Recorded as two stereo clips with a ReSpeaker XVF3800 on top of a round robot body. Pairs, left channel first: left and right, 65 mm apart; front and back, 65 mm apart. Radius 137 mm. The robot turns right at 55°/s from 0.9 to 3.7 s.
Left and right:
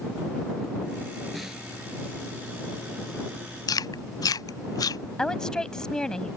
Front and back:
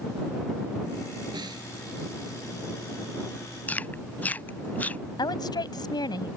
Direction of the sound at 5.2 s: 10° left.